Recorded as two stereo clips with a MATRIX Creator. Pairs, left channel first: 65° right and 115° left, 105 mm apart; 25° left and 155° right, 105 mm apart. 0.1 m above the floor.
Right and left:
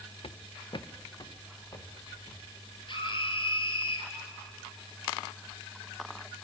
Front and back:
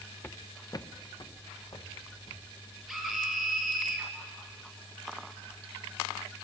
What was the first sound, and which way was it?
Footsteps, 45° right.